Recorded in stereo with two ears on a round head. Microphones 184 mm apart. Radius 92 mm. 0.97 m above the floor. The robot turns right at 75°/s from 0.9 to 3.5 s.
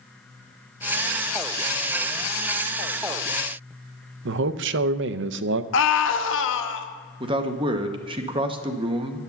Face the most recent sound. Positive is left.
turn(degrees=-25)  # may be behind; listen again after turning